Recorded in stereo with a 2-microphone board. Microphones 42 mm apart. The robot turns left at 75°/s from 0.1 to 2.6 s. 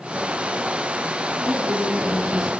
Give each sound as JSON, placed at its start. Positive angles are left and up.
{"t": 1.4, "sound": "a woman speaking", "azimuth_deg": -105, "distance_m": 3.5}